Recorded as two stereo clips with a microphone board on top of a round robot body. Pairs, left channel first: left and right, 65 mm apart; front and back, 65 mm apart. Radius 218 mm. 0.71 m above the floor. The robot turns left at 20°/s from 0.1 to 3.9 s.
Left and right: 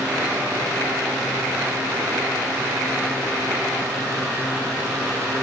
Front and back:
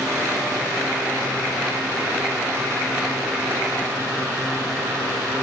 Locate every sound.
Only background noise.